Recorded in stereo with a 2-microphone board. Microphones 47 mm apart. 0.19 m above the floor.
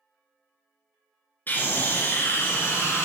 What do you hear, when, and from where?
1.5 s a scream: 45° left (ahead or behind), 2.5 m; by 3.0 s 65° left (ahead or behind), 2.5 m